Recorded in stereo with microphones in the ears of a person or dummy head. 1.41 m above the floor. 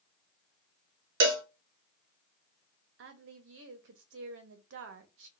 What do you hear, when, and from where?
1.2 s a cowbell: 60° right (ahead or behind), 0.6 m
3.0 s a woman speaking: 65° right (ahead or behind), 0.7 m